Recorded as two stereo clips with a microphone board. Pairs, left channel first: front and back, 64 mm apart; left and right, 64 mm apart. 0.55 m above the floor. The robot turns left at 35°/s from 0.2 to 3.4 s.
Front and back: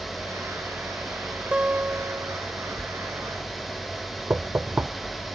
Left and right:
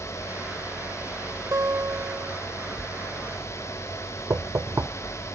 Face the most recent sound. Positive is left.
turn(degrees=-120)